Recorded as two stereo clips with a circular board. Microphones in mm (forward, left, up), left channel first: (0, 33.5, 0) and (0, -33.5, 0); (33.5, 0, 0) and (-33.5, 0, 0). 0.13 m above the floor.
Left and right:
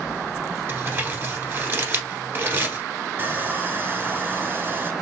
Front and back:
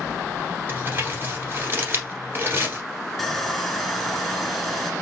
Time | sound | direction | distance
0.7 | crumpling | 135° right | 1.5 m
3.2 | sawing | 85° right | 0.7 m